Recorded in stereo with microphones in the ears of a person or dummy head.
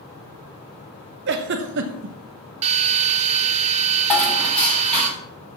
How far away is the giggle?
About 0.9 m.